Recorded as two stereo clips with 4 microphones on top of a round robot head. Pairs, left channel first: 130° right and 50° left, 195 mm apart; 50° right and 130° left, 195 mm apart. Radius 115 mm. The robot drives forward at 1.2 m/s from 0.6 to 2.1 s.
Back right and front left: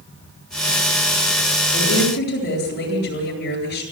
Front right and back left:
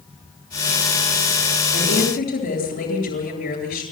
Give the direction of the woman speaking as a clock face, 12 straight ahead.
3 o'clock.